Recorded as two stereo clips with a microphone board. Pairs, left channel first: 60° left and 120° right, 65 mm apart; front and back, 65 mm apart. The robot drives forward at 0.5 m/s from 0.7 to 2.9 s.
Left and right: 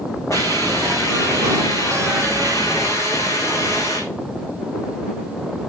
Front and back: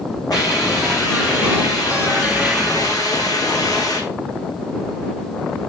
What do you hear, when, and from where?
0.3 s a hiss: 15° left, 7 m; by 4.0 s 20° left, 6 m